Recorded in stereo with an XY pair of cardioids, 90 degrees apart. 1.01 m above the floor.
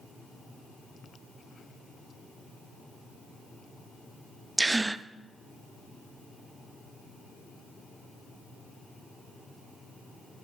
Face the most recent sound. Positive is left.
turn(degrees=-20)